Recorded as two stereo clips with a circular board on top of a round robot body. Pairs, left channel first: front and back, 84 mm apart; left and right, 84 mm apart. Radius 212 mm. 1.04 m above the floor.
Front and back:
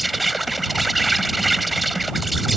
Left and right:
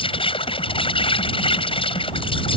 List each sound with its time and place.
0.0 s an insect: 90° left